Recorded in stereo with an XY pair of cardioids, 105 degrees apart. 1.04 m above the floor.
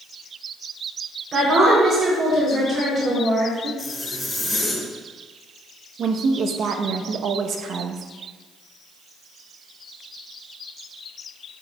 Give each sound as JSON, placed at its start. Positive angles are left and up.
{"t": 1.3, "sound": "a woman speaking", "azimuth_deg": -45, "distance_m": 3.0}
{"t": 3.8, "sound": "a zipper", "azimuth_deg": 5, "distance_m": 3.0}
{"t": 6.0, "sound": "a woman speaking", "azimuth_deg": -60, "distance_m": 0.8}